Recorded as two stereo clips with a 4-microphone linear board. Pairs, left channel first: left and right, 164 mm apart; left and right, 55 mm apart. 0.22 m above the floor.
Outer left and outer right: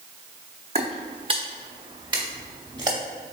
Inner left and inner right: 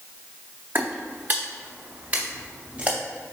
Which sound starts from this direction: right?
Footsteps, at 0.8 s.